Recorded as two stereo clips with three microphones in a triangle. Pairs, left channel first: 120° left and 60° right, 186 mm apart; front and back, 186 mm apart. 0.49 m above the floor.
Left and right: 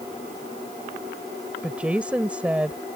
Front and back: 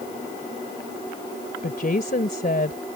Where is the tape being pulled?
No tape being pulled in this recording.